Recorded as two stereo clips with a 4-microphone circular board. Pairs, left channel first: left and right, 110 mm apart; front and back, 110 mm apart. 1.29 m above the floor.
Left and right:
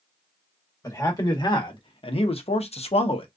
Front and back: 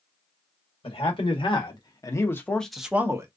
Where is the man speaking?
35° left, 1.4 m; by 3.3 s 120° left, 0.7 m.